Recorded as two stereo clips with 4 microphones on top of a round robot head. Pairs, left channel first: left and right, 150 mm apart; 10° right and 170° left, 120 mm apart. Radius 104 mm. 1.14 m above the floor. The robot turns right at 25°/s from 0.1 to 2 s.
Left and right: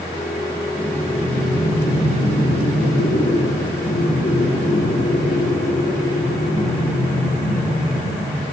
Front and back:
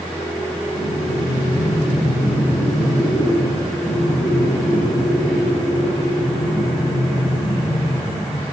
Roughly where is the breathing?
Ahead.